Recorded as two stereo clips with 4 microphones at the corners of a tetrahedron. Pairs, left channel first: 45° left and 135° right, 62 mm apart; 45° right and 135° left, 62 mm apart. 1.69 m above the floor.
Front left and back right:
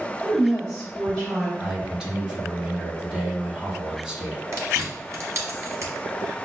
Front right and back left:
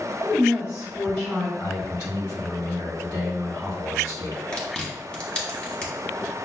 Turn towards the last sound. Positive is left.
turn(degrees=-110)